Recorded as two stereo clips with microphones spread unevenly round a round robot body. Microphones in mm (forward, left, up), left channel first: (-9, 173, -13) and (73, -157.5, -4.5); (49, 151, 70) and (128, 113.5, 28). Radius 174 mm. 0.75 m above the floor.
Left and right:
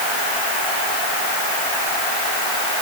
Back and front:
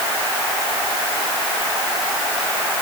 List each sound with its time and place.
Only background noise.